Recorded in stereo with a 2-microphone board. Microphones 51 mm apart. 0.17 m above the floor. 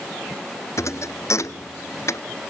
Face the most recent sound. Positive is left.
turn(degrees=65)  # may be behind; listen again after turning